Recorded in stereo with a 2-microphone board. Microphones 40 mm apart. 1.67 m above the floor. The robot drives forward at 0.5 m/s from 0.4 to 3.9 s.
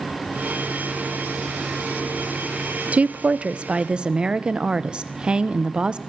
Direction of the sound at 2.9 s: 35° right (ahead or behind).